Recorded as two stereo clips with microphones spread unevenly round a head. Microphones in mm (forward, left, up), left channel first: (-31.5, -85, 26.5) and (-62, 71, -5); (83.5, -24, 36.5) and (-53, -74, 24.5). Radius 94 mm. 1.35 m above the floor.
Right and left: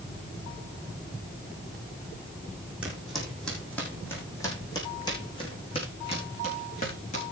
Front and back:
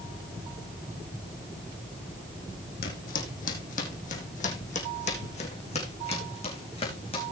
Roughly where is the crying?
I don't hear crying.